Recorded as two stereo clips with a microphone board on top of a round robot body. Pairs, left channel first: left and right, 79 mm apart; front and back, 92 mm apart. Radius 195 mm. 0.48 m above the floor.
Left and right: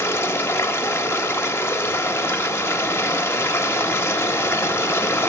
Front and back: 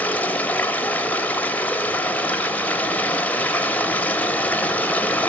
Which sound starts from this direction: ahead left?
Running water, at 0.0 s.